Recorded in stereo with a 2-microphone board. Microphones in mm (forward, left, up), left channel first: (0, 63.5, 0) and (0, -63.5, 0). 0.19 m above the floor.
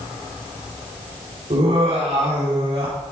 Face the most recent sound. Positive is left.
turn(degrees=-40)  # may be behind; listen again after turning